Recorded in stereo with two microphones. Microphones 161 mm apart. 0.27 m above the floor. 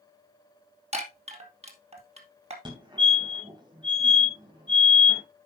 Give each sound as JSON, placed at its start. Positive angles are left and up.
{"t": 0.9, "sound": "a chime", "side_deg": -45, "distance_m": 2.5}
{"t": 2.6, "sound": "a fire alarm", "side_deg": -30, "distance_m": 3.0}